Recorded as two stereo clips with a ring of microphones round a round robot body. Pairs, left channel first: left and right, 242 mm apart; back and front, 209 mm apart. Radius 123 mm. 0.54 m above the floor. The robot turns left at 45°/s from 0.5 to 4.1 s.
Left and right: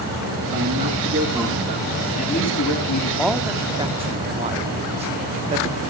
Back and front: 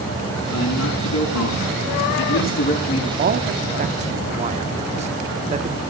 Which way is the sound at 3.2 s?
Straight ahead.